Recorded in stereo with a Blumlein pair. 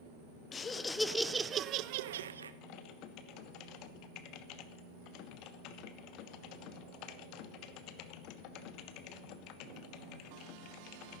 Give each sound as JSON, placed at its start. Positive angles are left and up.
{"t": 0.5, "sound": "laughter", "azimuth_deg": 20, "distance_m": 0.8}
{"t": 2.6, "sound": "typing on a keyboard", "azimuth_deg": 40, "distance_m": 0.7}